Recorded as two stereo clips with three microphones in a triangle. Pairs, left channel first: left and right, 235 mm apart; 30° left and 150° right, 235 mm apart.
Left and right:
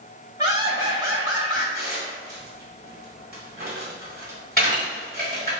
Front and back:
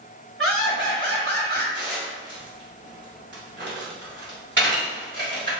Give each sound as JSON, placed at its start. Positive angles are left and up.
{"t": 0.4, "sound": "laughter", "azimuth_deg": -160, "distance_m": 1.9}
{"t": 1.8, "sound": "dishes clattering", "azimuth_deg": -130, "distance_m": 1.3}